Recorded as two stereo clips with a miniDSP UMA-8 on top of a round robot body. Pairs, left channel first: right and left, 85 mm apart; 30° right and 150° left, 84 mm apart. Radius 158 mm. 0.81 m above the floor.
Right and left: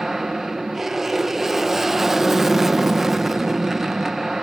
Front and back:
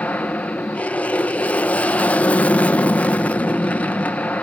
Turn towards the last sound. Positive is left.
turn(degrees=10)